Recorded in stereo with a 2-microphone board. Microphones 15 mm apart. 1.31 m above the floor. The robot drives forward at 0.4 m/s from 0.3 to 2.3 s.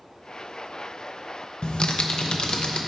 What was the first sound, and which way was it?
Typing on a keyboard, 85° left.